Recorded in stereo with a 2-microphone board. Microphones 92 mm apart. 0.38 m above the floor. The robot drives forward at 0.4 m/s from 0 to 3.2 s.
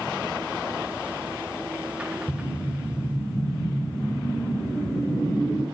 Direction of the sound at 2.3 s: 70° left (ahead or behind).